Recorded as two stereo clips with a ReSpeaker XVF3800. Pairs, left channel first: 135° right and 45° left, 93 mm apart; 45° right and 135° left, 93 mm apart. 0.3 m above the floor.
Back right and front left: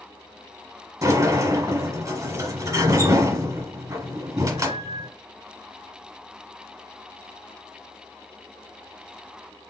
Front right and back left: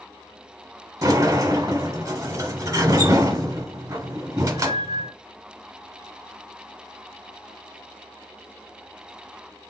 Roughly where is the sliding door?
Left.